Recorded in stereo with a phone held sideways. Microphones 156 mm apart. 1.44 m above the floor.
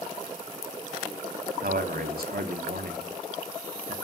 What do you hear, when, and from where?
1.6 s a man speaking: 75° right (ahead or behind), 0.6 m